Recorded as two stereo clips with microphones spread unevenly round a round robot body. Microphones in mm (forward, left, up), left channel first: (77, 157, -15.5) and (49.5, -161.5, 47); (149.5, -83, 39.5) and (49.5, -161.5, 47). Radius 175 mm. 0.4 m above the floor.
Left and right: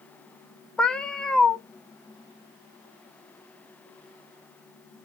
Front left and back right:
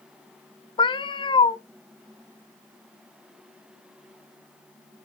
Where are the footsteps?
I don't hear footsteps.